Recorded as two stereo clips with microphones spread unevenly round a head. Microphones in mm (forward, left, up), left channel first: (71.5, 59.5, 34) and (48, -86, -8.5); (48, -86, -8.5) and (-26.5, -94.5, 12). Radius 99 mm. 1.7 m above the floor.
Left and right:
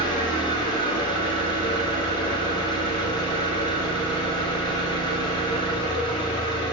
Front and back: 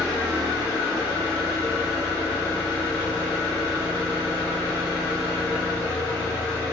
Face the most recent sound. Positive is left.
turn(degrees=40)